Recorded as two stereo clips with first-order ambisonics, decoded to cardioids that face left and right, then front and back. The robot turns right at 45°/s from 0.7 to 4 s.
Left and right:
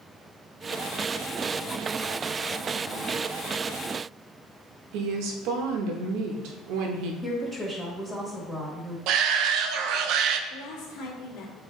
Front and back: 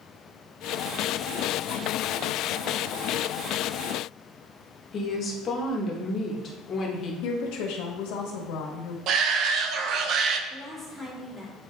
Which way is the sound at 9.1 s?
130° right.